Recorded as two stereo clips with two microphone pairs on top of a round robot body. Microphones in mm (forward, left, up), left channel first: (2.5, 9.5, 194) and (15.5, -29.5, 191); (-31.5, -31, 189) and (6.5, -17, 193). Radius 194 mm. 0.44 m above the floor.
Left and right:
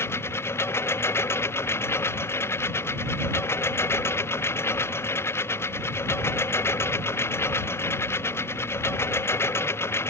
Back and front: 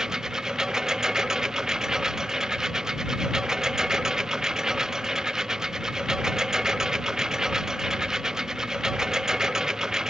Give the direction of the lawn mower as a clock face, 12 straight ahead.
9 o'clock.